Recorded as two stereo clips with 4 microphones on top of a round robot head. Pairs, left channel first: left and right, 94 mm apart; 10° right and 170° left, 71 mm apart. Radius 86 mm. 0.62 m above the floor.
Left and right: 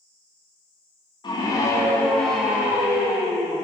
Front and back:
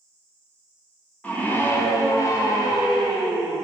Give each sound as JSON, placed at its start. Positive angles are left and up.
{"t": 1.2, "sound": "a scream", "azimuth_deg": 55, "distance_m": 1.9}